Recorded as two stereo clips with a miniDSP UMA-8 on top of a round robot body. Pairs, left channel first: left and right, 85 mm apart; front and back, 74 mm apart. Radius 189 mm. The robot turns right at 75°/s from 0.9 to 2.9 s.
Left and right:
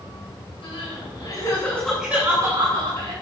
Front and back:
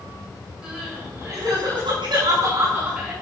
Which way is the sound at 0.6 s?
100° left.